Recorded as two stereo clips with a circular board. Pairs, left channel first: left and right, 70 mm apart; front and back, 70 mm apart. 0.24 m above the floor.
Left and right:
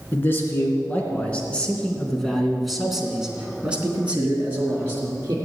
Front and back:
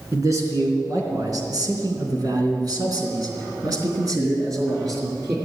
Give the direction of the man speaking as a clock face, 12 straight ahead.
7 o'clock.